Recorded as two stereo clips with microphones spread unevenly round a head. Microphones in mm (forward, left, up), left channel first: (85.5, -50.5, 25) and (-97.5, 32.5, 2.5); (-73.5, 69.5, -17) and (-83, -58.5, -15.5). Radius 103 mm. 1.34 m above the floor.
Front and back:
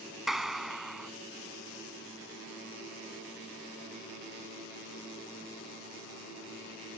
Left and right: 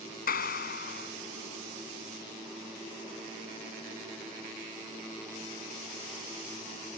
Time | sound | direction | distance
0.3 | a clap | 65° left | ?